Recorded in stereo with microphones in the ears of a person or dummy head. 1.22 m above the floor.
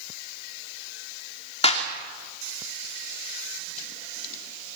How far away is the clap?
About 2.5 m.